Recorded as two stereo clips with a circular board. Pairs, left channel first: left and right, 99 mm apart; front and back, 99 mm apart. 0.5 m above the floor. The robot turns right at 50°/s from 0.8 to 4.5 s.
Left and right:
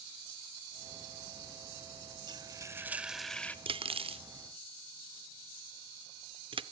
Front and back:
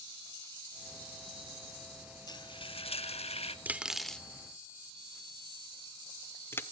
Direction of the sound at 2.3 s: 45° right.